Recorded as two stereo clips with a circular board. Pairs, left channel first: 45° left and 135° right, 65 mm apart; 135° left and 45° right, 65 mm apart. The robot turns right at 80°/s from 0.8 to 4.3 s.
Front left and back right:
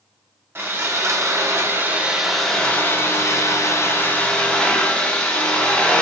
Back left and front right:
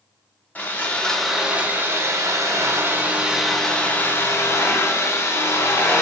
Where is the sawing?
170° right, 0.5 m; by 6.0 s 110° left, 0.5 m.